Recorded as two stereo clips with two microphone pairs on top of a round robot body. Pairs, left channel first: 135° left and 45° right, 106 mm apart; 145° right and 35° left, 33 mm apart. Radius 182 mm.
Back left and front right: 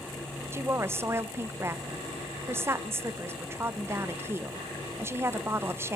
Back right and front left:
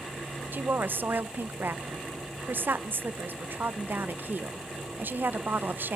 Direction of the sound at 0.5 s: 20° left.